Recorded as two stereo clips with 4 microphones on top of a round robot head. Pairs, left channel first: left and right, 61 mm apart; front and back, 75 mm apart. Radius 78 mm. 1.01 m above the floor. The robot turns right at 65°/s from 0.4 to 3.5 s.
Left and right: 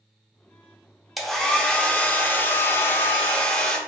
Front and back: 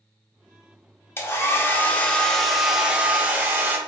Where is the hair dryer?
Straight ahead, 0.7 m; by 3.8 s 150° left, 0.7 m.